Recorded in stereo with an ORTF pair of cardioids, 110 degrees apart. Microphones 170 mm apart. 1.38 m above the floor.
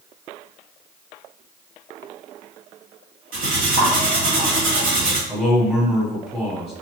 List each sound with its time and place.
3.3 s cutlery clinking: 60° right, 1.7 m
5.3 s a man speaking: 5° right, 1.4 m